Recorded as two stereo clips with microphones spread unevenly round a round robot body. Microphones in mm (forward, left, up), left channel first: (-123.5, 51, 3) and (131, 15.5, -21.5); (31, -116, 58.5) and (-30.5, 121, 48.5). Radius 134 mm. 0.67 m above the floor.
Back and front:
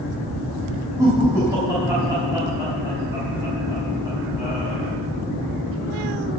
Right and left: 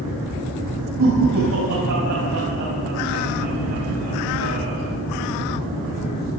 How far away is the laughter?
About 5.5 m.